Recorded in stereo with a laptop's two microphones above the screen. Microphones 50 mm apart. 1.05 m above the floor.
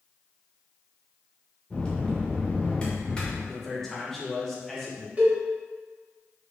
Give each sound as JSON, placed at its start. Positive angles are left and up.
{"t": 1.7, "sound": "a bell", "side_deg": 20, "distance_m": 0.8}
{"t": 3.5, "sound": "a man speaking", "side_deg": 5, "distance_m": 1.2}
{"t": 5.2, "sound": "a cowbell", "side_deg": -25, "distance_m": 0.9}